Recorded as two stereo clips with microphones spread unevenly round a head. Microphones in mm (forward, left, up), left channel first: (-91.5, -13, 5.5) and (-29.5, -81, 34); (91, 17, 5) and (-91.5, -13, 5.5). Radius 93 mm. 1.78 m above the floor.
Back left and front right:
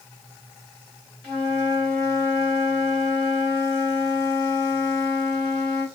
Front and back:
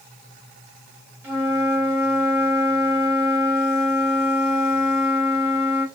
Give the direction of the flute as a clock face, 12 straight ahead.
4 o'clock.